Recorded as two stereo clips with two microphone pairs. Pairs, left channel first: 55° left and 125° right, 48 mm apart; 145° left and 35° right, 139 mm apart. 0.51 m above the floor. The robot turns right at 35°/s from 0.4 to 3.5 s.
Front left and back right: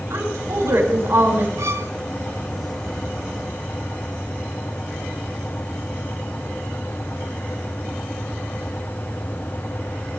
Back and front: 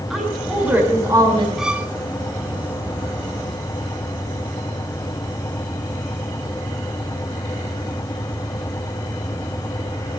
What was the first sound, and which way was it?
A woman speaking, 120° right.